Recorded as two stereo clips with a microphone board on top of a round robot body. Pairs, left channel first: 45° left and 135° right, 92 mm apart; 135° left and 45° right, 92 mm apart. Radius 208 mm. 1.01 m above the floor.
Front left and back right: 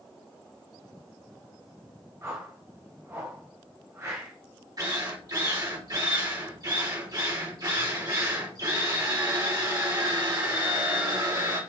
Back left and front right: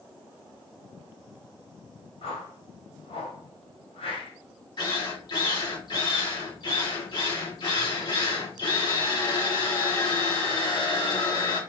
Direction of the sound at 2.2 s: 160° left.